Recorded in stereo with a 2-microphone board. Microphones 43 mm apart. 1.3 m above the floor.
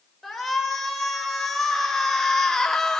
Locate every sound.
0.2 s a shout: 5° left (ahead or behind), 5 m; by 3.0 s 15° left (ahead or behind), 2.5 m